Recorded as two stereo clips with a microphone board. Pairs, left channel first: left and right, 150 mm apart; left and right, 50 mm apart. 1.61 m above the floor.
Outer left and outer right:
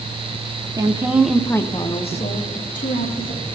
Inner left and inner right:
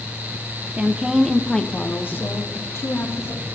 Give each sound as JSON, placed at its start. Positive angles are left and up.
{"t": 0.8, "sound": "a woman speaking", "side_deg": -25, "distance_m": 0.8}